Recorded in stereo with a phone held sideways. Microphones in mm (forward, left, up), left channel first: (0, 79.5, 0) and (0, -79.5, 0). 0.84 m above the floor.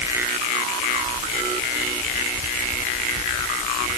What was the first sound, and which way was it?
Only background noise.